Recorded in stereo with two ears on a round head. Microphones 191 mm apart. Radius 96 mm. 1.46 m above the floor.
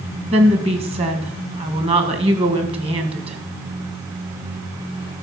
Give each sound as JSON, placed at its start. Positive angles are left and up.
{"t": 0.3, "sound": "a woman speaking", "side_deg": -25, "distance_m": 1.7}